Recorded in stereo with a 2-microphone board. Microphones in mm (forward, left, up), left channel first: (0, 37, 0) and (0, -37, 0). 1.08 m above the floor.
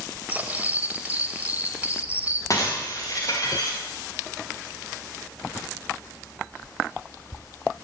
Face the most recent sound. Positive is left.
turn(degrees=45)  # may be behind; listen again after turning